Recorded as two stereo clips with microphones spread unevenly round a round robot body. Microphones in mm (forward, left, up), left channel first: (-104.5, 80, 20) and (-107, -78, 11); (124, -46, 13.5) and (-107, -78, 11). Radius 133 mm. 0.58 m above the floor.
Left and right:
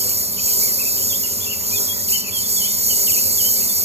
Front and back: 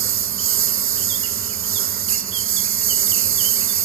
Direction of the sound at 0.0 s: 140° right.